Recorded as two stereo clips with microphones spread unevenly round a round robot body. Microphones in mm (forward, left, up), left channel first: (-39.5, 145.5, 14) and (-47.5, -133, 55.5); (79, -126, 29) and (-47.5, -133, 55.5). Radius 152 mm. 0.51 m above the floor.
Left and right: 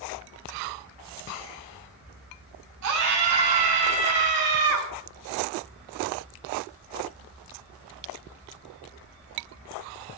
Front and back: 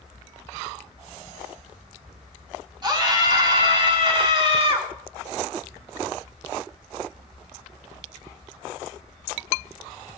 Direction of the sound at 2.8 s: 120° right.